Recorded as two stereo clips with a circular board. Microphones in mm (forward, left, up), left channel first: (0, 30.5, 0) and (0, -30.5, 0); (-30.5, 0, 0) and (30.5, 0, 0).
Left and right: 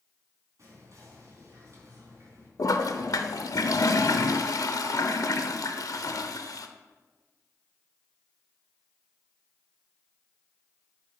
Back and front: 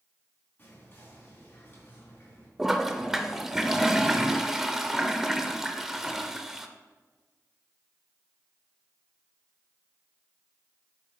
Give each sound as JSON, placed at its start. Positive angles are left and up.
{"t": 0.6, "sound": "whispering", "azimuth_deg": -125, "distance_m": 4.0}
{"t": 2.6, "sound": "a toilet flushing", "azimuth_deg": 85, "distance_m": 0.6}